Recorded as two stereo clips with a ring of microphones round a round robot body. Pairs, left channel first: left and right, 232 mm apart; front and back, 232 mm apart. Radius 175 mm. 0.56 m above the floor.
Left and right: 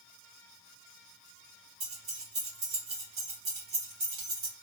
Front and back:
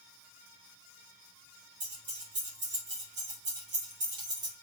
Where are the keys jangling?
135° right, 1.4 m.